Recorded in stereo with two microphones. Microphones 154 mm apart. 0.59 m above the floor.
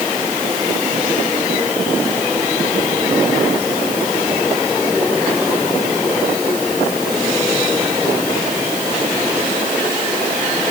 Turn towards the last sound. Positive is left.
No sound to turn to.